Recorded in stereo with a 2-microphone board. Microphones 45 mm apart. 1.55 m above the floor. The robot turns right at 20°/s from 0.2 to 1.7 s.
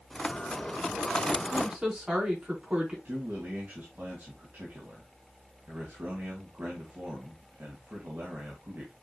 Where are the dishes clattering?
I don't hear dishes clattering.